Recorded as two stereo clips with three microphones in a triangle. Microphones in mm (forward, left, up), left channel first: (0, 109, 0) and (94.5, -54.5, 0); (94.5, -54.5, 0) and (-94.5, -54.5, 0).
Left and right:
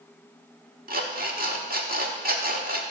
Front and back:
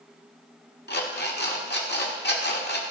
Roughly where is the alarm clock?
Ahead right.